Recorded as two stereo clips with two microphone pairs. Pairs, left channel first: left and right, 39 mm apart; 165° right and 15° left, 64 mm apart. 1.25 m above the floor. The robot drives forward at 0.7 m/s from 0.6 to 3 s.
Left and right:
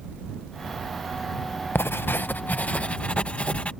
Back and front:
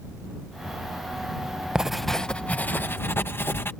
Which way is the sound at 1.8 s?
95° left.